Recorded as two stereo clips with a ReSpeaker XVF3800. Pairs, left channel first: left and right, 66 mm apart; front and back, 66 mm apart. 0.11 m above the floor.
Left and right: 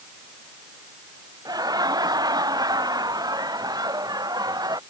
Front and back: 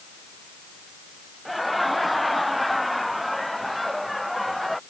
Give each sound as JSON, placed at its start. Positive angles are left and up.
{"t": 1.4, "sound": "laughter", "azimuth_deg": -90}